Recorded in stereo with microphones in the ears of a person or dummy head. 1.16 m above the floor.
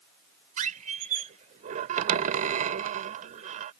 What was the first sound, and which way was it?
A squeak, 40° right (ahead or behind).